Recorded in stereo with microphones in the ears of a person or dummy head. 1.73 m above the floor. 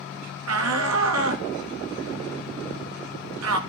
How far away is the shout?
About 3 m.